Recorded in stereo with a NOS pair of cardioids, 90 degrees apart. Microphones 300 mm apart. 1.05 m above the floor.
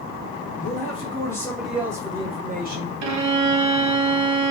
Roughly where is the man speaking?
Ahead left.